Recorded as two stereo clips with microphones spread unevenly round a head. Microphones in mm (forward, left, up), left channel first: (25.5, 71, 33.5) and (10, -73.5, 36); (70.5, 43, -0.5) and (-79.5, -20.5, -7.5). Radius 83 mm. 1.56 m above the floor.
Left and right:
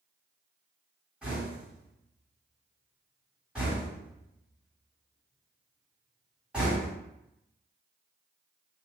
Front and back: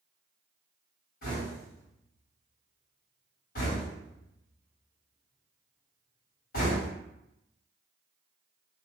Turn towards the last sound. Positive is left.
turn(degrees=-15)